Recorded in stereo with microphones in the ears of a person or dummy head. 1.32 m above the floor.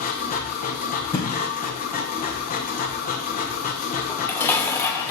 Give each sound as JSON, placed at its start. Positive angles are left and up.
{"t": 0.0, "sound": "a machine running", "side_deg": 45, "distance_m": 1.1}
{"t": 1.1, "sound": "a thud", "side_deg": 20, "distance_m": 2.5}
{"t": 4.1, "sound": "dishes clattering", "side_deg": 10, "distance_m": 1.0}